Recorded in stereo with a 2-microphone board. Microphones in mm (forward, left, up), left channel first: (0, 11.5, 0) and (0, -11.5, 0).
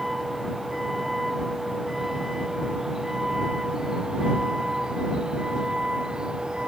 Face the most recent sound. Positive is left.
turn(degrees=-35)  # may be behind; listen again after turning